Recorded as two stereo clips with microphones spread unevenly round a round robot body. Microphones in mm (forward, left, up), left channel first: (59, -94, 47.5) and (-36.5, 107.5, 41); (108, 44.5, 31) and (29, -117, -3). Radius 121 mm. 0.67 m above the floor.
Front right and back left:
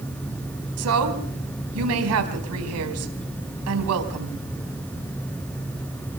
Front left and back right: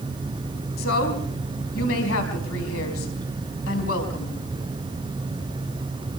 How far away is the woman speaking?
About 4.5 m.